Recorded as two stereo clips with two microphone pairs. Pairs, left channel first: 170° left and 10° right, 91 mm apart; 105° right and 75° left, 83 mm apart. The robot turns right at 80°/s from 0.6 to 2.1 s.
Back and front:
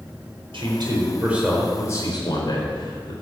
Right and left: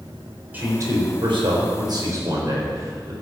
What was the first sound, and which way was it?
A man speaking, 10° left.